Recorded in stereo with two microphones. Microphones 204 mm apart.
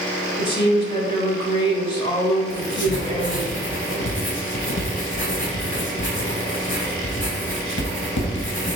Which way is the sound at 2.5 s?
65° left (ahead or behind).